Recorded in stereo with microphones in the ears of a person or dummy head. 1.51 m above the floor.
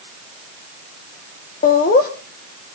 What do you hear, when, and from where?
1.6 s laughter: 45° left (ahead or behind), 1.5 m